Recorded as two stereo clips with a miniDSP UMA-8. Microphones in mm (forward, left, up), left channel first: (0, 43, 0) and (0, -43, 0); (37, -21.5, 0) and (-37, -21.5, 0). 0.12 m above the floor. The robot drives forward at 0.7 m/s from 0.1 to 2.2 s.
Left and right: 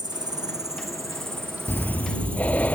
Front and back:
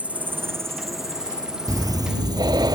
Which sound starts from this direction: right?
An insect, at 0.0 s.